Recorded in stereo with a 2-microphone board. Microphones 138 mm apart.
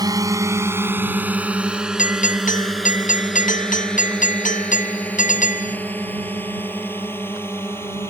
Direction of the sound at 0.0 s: 25° right (ahead or behind).